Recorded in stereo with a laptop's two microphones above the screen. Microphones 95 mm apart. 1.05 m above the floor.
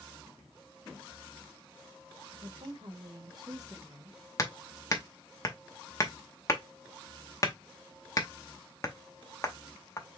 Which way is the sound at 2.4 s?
65° right (ahead or behind).